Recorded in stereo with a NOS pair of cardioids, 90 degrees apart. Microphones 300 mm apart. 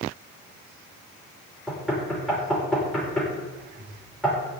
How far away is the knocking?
About 6.5 m.